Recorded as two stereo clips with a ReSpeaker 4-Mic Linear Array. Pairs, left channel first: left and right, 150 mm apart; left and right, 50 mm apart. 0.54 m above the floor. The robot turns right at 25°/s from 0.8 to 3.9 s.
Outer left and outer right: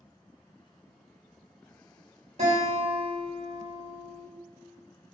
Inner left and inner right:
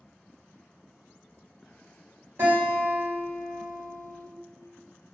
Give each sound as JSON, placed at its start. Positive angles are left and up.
{"t": 2.4, "sound": "a guitar", "azimuth_deg": -65, "distance_m": 1.2}